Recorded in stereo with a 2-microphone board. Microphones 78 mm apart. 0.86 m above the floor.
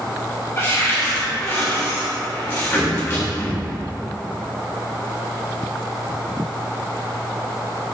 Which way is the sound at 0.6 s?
30° left (ahead or behind).